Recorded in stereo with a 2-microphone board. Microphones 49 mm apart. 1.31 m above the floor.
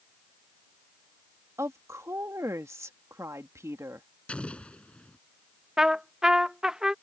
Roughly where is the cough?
I don't hear a cough.